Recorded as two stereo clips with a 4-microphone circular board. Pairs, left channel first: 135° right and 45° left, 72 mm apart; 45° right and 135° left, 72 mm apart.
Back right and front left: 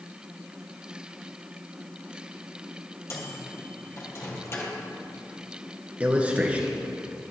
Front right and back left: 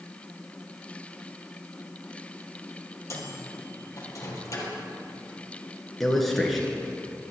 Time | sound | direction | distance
3.1 | a microwave | 85° right | 2 m
6.0 | a man speaking | 40° left | 1.7 m